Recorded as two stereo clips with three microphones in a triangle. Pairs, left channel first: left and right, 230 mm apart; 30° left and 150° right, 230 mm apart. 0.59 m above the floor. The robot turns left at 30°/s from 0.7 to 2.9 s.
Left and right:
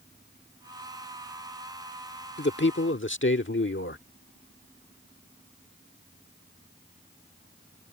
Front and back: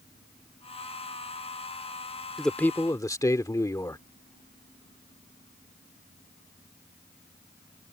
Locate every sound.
2.4 s a man speaking: 120° left; by 4.0 s 105° left